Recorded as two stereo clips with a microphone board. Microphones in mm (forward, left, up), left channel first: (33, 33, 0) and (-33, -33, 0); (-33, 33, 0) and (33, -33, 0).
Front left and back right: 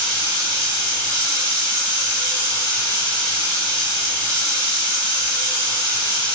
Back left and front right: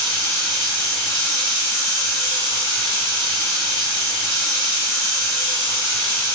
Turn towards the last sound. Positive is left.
turn(degrees=-70)